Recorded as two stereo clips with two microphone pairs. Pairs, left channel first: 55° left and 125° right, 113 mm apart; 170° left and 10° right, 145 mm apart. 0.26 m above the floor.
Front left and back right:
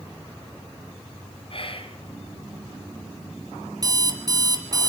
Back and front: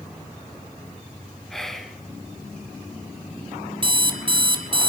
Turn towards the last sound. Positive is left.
turn(degrees=-65)